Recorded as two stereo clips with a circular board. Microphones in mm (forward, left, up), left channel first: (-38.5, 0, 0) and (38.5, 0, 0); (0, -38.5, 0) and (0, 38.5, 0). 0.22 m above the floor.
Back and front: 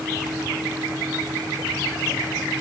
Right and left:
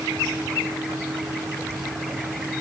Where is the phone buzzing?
I don't hear a phone buzzing.